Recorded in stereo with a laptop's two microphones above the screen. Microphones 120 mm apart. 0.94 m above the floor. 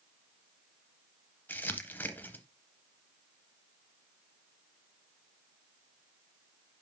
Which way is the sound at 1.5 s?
15° left (ahead or behind).